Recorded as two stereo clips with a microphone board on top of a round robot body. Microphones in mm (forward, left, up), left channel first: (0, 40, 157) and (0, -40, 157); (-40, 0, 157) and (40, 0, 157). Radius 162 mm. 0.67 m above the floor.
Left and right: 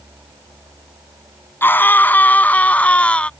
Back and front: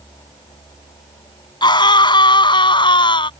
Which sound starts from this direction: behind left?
A scream, at 1.6 s.